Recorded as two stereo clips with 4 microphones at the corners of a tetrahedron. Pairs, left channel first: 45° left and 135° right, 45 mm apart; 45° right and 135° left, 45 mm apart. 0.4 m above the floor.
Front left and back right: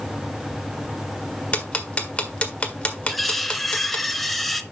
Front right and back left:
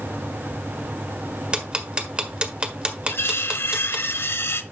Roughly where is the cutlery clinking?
Ahead right.